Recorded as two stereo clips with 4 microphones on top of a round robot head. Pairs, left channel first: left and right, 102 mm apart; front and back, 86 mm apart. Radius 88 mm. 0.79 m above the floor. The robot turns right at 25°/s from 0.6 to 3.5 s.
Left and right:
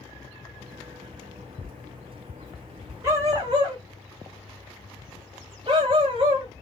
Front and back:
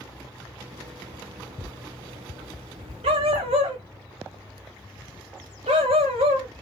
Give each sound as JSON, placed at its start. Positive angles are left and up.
{"t": 3.0, "sound": "a dog barking", "azimuth_deg": -160, "distance_m": 0.8}